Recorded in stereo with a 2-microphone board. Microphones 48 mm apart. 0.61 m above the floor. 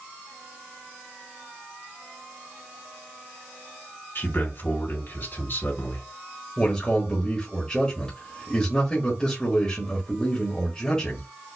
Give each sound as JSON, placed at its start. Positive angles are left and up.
{"t": 4.2, "sound": "a man speaking", "side_deg": 55, "distance_m": 2.5}
{"t": 6.6, "sound": "a man speaking", "side_deg": 20, "distance_m": 1.4}